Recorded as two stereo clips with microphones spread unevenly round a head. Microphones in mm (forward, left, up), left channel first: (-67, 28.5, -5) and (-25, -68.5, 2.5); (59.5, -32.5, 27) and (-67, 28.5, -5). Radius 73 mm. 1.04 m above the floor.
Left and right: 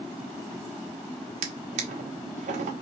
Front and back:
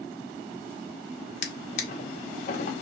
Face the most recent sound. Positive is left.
turn(degrees=-60)